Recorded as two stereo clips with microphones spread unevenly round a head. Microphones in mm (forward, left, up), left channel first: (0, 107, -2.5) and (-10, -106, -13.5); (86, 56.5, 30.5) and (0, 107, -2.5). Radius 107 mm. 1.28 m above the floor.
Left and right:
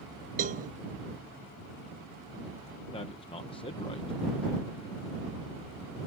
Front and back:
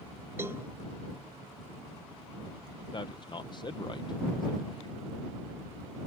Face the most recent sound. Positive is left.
turn(degrees=20)